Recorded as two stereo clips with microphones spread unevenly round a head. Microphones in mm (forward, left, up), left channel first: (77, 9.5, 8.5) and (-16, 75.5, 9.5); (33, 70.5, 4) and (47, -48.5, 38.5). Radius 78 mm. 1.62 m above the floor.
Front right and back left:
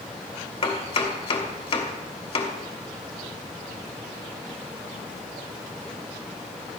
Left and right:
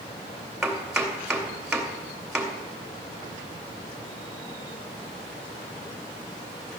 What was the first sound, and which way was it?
Chopping, straight ahead.